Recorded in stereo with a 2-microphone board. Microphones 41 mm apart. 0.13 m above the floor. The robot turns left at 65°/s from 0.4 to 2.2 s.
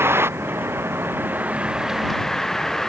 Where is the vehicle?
75° right; by 2.9 s 170° left.